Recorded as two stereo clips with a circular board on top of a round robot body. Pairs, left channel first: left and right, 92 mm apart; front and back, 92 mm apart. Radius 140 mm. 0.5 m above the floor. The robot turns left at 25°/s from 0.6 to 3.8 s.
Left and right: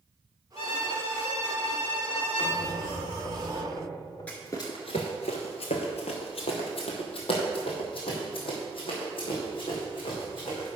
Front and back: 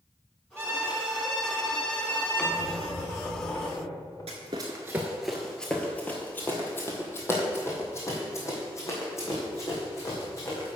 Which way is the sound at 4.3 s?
165° left.